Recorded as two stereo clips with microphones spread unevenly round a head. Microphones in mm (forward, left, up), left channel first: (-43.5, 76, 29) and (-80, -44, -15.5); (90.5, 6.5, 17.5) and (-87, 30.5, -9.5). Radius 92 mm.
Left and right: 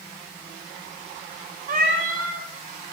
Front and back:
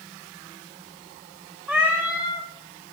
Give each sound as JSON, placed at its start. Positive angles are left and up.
{"t": 1.7, "sound": "a cat meowing", "azimuth_deg": -95, "distance_m": 2.0}